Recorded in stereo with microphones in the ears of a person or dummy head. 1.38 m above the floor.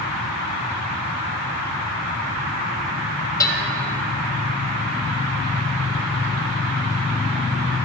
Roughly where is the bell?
Centre.